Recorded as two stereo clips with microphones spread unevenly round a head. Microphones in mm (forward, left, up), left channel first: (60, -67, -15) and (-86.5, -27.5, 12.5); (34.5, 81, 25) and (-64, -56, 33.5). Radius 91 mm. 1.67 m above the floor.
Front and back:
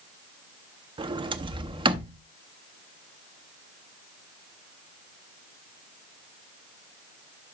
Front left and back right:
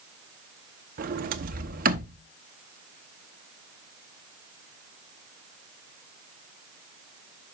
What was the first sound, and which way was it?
A sliding door, 150° right.